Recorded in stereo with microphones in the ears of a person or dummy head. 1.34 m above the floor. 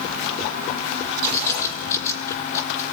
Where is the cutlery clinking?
No cutlery clinking in this recording.